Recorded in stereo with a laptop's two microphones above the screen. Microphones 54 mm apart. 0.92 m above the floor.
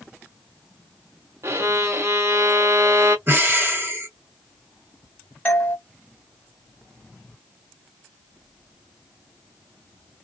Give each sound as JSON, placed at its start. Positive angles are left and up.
{"t": 1.4, "sound": "a violin", "side_deg": -55, "distance_m": 0.6}
{"t": 3.3, "sound": "breathing", "side_deg": -40, "distance_m": 0.9}
{"t": 5.5, "sound": "a doorbell", "side_deg": 30, "distance_m": 0.9}